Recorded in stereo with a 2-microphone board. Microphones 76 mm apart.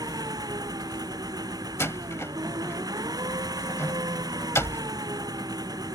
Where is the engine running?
60° right (ahead or behind).